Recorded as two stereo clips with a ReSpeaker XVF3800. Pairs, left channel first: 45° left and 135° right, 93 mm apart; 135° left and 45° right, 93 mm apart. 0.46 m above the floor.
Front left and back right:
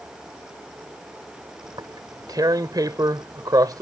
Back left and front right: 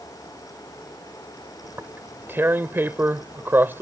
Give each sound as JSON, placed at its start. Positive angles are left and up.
{"t": 1.6, "sound": "tearing paper", "azimuth_deg": -105}